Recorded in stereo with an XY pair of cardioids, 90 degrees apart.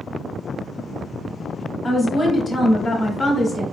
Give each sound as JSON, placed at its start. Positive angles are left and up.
{"t": 1.8, "sound": "a woman speaking", "azimuth_deg": 35, "distance_m": 1.7}